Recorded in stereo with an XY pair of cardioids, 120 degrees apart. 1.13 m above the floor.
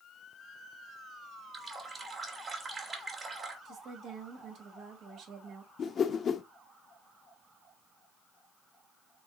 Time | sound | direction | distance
1.5 | a running tap | 30° right | 1.9 m
3.6 | a woman speaking | 65° right | 2 m
5.8 | a whoosh | 45° left | 0.7 m